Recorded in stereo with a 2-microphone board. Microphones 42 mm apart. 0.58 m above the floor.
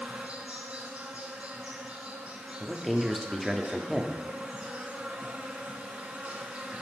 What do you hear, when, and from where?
0.0 s an insect: 35° right (ahead or behind), 1.2 m
2.6 s a man speaking: centre (ahead or behind), 0.7 m